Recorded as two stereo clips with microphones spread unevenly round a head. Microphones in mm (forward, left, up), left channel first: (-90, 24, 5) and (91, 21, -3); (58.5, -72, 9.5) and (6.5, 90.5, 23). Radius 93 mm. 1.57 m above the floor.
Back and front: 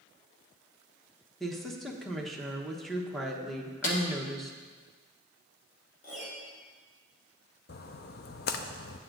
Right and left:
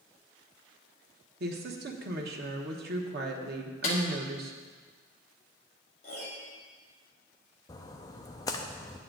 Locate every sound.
1.4 s a woman speaking: 90° left, 1.1 m
3.8 s a snare drum: 130° right, 1.2 m
6.0 s a piano: 130° right, 1.9 m
7.7 s a splash: 140° right, 0.5 m